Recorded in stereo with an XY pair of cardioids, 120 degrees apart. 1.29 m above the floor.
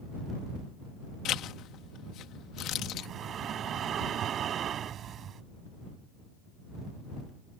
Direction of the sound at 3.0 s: 50° right.